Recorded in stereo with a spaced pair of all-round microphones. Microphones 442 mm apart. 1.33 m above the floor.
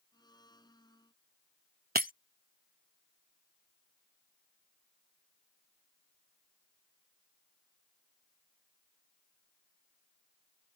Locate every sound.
0.1 s a blender: 10° left (ahead or behind)
1.9 s breaking glass: 20° right (ahead or behind)